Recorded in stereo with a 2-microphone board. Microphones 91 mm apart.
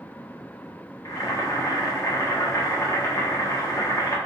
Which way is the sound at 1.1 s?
40° left (ahead or behind).